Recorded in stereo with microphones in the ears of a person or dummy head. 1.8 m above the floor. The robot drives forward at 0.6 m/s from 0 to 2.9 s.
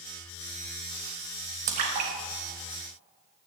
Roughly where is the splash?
Right.